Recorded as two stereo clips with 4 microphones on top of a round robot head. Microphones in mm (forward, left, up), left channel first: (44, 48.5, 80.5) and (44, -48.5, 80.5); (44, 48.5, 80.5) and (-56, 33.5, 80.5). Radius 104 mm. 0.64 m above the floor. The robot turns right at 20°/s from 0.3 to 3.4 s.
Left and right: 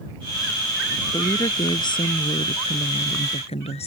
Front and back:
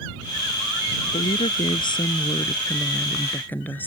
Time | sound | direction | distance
1.1 | a woman speaking | 35° left | ?